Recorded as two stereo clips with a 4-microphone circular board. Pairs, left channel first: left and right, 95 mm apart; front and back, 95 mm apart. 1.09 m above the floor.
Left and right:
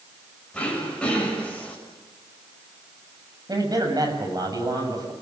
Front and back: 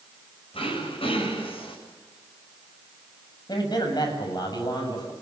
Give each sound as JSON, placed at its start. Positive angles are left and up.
{"t": 0.5, "sound": "throat clearing", "azimuth_deg": 10, "distance_m": 7.0}
{"t": 3.5, "sound": "a man speaking", "azimuth_deg": -40, "distance_m": 7.5}